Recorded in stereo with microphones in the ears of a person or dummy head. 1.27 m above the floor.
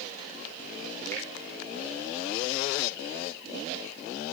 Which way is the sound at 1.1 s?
10° left (ahead or behind).